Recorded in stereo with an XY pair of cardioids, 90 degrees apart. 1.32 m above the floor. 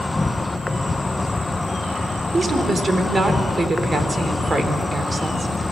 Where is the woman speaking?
30° right, 3.5 m.